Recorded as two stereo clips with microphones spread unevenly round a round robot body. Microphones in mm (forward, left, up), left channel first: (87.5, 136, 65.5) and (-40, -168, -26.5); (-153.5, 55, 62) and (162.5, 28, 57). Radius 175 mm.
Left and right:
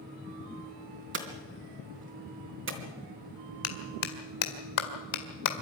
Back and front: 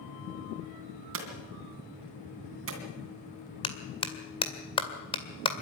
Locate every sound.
1.1 s hammering: 55° right, 2.5 m
3.6 s a clap: 100° left, 2 m